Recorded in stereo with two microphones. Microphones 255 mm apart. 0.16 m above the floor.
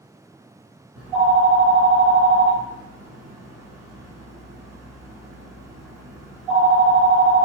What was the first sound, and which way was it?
A phone ringing, 5° right (ahead or behind).